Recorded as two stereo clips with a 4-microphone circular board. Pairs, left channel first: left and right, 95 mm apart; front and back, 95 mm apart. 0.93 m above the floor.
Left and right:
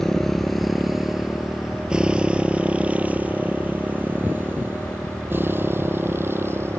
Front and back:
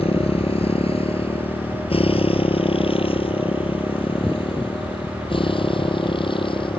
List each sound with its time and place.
0.0 s a motorcycle: 5° left; by 6.8 s 25° right